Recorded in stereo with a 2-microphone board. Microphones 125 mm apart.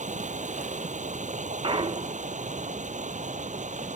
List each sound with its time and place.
0.0 s running water: 70° right (ahead or behind)
1.6 s a clunk: 45° right (ahead or behind)